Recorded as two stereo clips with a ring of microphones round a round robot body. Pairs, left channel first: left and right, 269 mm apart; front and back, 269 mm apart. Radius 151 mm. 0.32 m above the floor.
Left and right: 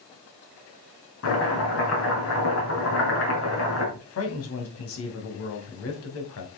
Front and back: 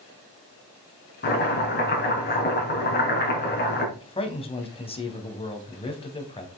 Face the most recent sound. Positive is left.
turn(degrees=65)